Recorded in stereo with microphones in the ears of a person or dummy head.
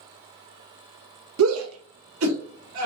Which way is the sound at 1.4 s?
80° right.